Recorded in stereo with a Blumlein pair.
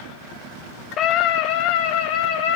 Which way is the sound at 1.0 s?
30° left.